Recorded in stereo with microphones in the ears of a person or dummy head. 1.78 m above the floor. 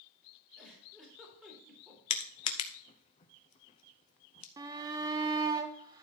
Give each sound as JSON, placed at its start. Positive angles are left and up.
{"t": 0.6, "sound": "a giggle", "side_deg": -5, "distance_m": 3.5}
{"t": 2.1, "sound": "crushing", "side_deg": 35, "distance_m": 0.7}
{"t": 4.6, "sound": "a shout", "side_deg": -20, "distance_m": 1.0}